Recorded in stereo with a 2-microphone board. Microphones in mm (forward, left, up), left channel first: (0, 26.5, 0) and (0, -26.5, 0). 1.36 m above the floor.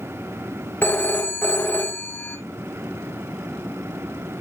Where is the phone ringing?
40° left (ahead or behind), 1.2 m.